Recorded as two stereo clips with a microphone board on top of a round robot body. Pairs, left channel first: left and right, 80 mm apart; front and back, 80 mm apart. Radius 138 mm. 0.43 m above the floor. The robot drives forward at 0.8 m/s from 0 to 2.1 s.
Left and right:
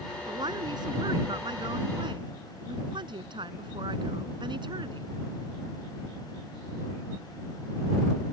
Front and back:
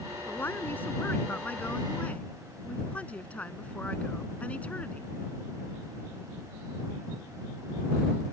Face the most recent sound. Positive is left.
turn(degrees=-75)